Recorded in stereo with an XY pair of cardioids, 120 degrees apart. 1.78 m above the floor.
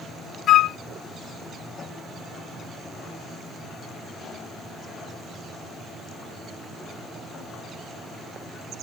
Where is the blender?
I don't hear a blender.